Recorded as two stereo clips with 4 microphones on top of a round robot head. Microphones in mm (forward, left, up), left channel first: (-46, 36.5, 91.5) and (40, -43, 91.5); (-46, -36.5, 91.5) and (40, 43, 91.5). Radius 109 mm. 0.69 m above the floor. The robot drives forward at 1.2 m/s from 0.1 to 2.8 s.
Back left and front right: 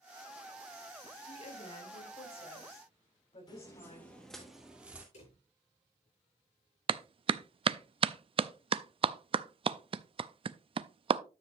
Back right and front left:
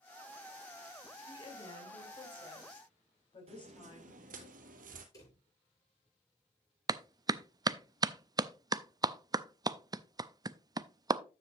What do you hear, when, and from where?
1.3 s a woman speaking: 170° left, 2.5 m; by 4.5 s 175° left, 4.5 m
3.5 s footsteps: 80° left, 1.1 m; by 5.0 s 35° left, 1.4 m
5.1 s a drawer: 160° left, 7 m
6.9 s a clap: 10° right, 0.5 m